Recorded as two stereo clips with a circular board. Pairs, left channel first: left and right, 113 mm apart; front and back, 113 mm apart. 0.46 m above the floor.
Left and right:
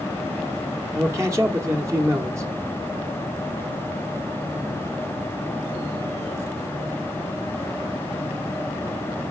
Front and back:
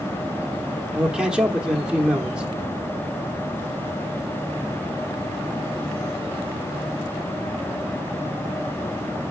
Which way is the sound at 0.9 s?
105° right.